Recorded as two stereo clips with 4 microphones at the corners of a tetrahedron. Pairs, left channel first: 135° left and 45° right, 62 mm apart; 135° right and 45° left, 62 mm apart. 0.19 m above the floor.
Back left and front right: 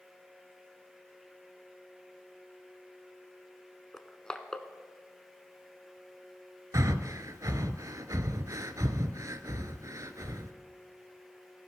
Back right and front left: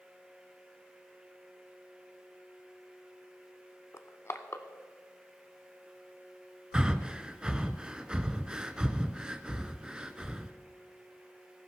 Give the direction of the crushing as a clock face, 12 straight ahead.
5 o'clock.